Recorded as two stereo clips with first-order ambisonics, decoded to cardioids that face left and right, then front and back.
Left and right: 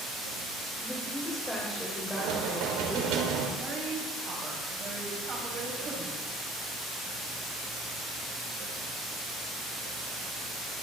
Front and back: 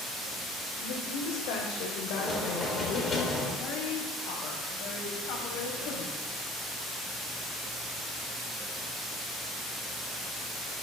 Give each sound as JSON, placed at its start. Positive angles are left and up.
{"t": 0.8, "sound": "a woman speaking", "azimuth_deg": 5, "distance_m": 4.0}
{"t": 2.1, "sound": "knocking", "azimuth_deg": -70, "distance_m": 3.0}
{"t": 3.6, "sound": "a woman speaking", "azimuth_deg": -30, "distance_m": 5.5}